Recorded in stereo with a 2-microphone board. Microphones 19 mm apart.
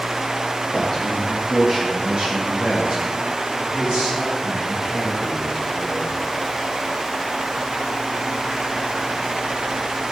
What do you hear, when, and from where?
0.7 s a man speaking: 10° right (ahead or behind), 1.5 m; by 6.1 s 80° right, 4.5 m